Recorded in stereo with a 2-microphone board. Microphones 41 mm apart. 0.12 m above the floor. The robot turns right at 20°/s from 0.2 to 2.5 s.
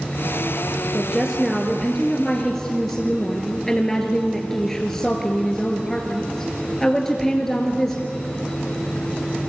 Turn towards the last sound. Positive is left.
turn(degrees=10)